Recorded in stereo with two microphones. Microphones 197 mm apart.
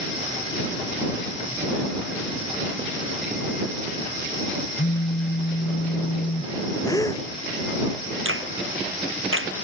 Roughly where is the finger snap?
Right.